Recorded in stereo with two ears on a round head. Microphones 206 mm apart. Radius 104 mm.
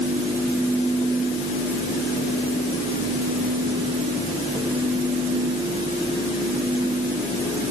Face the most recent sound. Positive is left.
No sound to turn to.